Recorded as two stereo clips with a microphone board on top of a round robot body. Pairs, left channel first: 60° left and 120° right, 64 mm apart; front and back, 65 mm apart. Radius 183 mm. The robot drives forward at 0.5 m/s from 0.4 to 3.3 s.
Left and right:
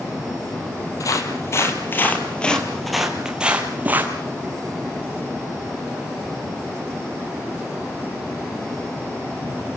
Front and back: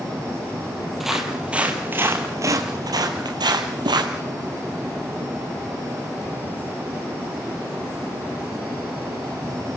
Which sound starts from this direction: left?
Footsteps, at 1.0 s.